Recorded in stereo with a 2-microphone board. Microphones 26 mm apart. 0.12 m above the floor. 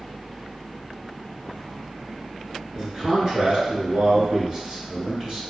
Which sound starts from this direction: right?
A man speaking, at 2.7 s.